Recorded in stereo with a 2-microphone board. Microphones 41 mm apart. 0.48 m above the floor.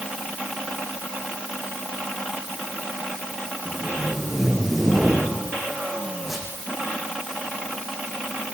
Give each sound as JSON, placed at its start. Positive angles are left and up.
{"t": 3.6, "sound": "tape being pulled", "side_deg": -5, "distance_m": 7.0}